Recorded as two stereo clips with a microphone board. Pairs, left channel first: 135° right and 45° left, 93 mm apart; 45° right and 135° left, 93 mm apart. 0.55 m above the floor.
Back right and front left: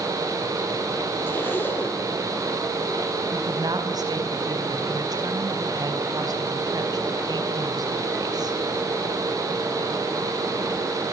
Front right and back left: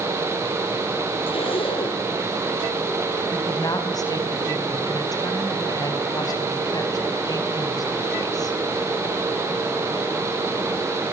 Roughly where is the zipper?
Ahead right.